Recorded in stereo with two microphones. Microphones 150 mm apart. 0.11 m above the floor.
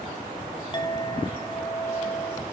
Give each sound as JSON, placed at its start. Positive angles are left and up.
{"t": 0.7, "sound": "a clink", "side_deg": 30, "distance_m": 2.5}